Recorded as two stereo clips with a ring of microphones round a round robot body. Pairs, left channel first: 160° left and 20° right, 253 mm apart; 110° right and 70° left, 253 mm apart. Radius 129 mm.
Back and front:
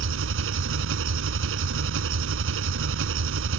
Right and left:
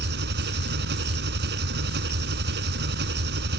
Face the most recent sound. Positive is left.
turn(degrees=20)